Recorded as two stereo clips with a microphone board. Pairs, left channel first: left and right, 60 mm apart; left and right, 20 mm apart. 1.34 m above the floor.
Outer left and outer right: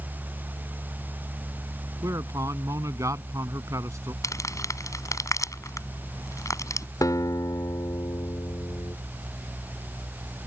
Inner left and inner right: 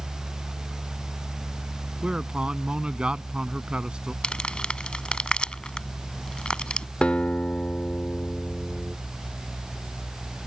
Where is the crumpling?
60° left (ahead or behind).